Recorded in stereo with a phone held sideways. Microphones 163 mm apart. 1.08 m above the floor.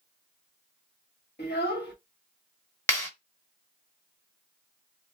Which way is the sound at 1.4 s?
80° left.